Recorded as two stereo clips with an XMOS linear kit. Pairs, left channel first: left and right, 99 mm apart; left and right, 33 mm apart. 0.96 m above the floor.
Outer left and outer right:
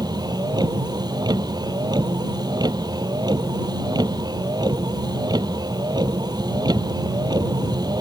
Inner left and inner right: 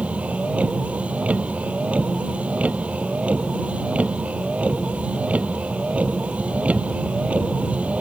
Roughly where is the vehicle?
Right.